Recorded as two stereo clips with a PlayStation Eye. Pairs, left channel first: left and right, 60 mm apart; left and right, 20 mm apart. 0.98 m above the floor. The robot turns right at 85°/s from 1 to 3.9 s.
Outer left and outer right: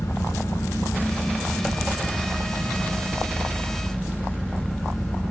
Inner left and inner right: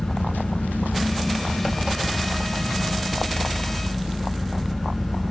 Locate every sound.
0.0 s an engine running: 125° left, 4 m; by 5.3 s 10° left, 4 m